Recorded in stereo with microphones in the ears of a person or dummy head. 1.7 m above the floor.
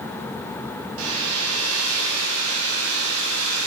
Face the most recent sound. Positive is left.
turn(degrees=-90)